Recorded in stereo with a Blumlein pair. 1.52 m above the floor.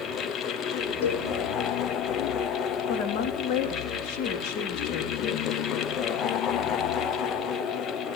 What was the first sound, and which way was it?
A fan, 30° left.